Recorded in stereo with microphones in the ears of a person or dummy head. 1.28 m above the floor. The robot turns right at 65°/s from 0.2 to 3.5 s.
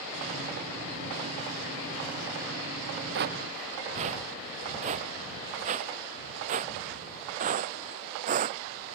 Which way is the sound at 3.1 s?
65° right (ahead or behind).